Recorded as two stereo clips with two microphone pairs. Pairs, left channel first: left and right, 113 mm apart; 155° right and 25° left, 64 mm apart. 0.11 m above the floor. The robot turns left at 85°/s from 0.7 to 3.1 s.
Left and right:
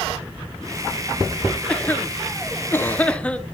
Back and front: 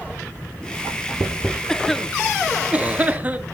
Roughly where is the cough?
Behind left.